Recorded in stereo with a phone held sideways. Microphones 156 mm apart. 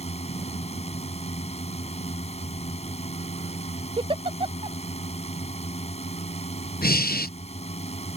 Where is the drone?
45° left (ahead or behind).